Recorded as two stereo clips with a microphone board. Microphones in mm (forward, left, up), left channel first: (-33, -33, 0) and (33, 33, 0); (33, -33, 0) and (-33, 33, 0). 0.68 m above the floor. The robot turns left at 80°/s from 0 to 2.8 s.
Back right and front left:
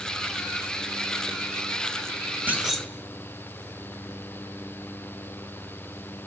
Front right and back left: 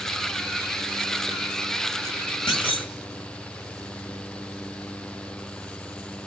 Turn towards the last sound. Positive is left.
turn(degrees=-50)